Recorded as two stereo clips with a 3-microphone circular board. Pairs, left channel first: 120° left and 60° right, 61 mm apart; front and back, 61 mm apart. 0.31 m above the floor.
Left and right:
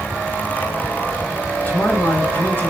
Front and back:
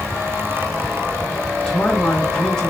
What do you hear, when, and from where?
1.6 s a man speaking: 75° left, 1.9 m